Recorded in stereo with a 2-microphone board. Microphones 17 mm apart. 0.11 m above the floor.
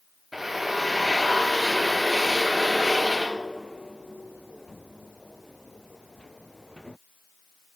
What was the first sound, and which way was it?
A drill, 20° right (ahead or behind).